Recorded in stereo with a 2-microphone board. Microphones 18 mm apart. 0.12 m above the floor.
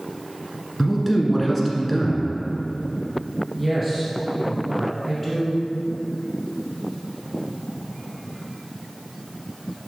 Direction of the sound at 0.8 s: 10° left (ahead or behind).